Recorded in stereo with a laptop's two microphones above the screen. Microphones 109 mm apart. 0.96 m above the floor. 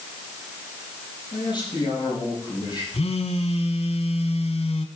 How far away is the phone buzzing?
About 1.1 m.